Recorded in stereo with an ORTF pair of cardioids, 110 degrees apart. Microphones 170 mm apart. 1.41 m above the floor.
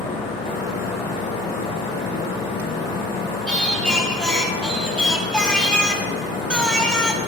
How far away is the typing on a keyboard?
No typing on a keyboard in this recording.